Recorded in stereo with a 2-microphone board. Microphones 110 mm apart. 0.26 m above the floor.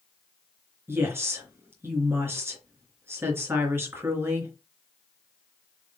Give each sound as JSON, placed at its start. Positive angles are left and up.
{"t": 0.9, "sound": "a woman speaking", "side_deg": -20, "distance_m": 3.5}